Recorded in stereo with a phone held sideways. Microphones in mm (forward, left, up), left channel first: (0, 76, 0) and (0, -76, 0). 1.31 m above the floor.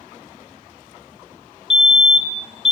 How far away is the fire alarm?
About 1.2 m.